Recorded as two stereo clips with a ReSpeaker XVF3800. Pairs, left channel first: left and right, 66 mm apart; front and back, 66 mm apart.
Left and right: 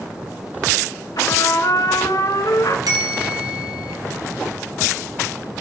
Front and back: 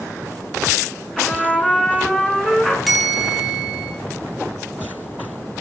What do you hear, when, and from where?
1.2 s a trumpet: 80° left, 1.9 m
2.9 s a bell: 90° right, 4.5 m